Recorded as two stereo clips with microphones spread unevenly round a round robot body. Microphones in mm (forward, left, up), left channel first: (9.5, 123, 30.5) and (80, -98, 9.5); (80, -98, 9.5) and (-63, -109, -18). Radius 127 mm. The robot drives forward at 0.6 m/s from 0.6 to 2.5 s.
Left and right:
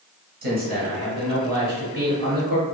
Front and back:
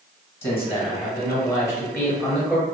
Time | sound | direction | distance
0.4 | a man speaking | 45° right | 1.7 m